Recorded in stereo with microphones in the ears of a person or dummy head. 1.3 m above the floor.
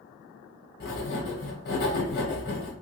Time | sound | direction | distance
0.8 | writing | 55° left (ahead or behind) | 1.3 m